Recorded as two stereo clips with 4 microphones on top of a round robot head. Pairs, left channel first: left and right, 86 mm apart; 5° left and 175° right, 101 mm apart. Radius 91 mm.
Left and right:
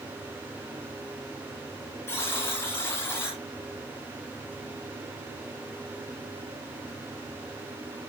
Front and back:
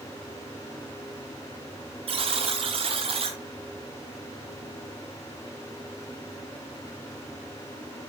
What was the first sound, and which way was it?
A buzzer, 160° left.